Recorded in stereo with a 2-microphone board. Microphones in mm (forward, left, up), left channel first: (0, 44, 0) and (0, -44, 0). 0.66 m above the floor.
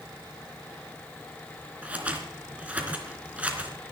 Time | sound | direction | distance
1.8 | scissors | 15° right (ahead or behind) | 3 m